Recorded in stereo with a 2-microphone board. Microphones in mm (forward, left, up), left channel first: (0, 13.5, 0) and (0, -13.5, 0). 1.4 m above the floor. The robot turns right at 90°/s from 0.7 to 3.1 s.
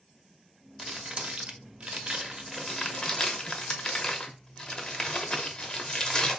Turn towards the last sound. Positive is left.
turn(degrees=30)  # may be behind; listen again after turning